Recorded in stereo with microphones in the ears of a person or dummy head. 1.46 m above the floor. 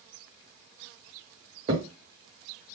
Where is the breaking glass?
No breaking glass in this recording.